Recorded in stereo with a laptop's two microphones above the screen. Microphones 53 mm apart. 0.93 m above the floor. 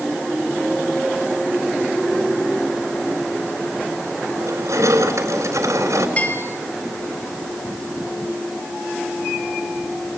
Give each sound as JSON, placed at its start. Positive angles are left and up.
{"t": 4.4, "sound": "crushing", "side_deg": -75, "distance_m": 4.0}
{"t": 6.2, "sound": "a bell", "side_deg": 30, "distance_m": 1.5}